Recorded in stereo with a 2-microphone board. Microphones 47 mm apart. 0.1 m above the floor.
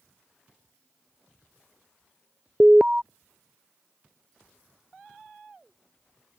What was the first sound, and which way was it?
An alarm, 20° right (ahead or behind).